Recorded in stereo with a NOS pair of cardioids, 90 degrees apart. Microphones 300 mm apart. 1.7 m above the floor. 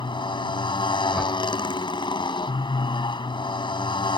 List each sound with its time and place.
0.0 s a motorcycle: 15° left
1.1 s a whoosh: straight ahead